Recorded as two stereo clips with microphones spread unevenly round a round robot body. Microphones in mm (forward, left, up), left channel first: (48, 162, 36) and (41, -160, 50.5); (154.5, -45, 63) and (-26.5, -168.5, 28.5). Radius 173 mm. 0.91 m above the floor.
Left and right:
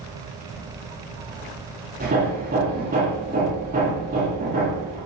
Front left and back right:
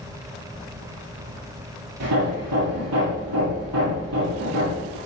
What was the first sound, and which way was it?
Hammering, 155° right.